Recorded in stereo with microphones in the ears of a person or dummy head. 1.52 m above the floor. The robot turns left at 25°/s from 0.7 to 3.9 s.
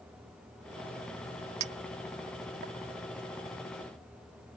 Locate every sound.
1.6 s a clink: 35° right (ahead or behind); by 2.7 s 60° right (ahead or behind)